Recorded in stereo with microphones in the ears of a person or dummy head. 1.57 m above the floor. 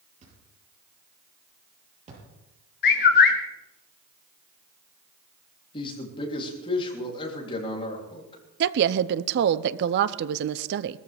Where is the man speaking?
30° left (ahead or behind), 3.5 m.